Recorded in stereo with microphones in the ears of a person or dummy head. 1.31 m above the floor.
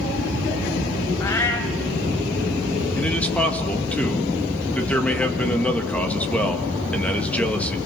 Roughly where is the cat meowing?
Centre.